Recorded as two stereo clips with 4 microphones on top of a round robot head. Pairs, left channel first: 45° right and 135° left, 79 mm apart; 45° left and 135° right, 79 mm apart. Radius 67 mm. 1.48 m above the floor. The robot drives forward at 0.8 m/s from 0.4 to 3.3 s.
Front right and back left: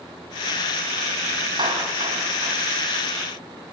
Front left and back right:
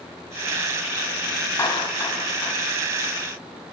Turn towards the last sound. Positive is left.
turn(degrees=110)